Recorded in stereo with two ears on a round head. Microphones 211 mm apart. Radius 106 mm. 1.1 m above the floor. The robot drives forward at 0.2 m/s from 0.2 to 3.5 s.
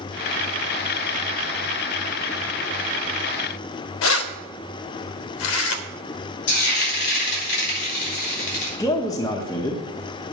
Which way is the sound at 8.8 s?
15° left (ahead or behind).